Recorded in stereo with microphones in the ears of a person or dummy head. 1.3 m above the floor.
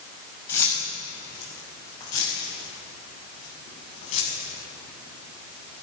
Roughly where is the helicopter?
No helicopter in this recording.